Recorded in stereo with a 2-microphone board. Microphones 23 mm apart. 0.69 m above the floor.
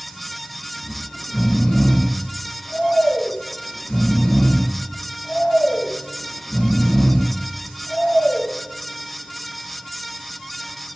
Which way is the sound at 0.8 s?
50° left (ahead or behind).